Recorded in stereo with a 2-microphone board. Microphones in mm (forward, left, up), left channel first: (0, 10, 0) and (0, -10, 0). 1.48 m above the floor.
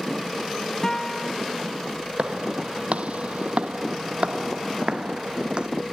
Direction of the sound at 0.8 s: 30° left (ahead or behind).